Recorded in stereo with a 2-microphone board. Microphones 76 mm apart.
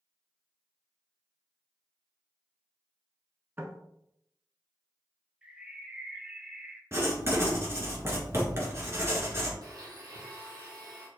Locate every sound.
3.6 s knocking: 30° right (ahead or behind), 0.9 m
5.4 s a bird: 15° right (ahead or behind), 0.8 m
6.9 s writing: 35° right (ahead or behind), 1.7 m
9.6 s a blender: 60° right (ahead or behind), 1.9 m